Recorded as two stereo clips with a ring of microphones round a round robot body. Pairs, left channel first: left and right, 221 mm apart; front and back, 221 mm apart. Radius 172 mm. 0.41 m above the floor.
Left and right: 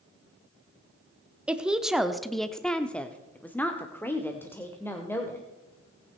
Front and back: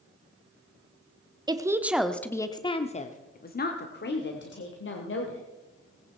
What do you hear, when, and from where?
1.5 s a woman speaking: 165° right, 0.9 m; by 5.4 s 10° left, 1.9 m